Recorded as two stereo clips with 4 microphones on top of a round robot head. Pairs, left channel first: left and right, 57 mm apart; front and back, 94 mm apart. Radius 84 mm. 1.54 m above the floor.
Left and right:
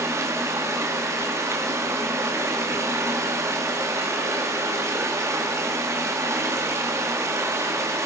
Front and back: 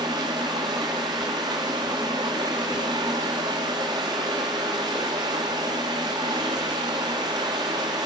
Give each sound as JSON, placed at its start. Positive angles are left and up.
{"t": 0.0, "sound": "running water", "azimuth_deg": -125, "distance_m": 2.0}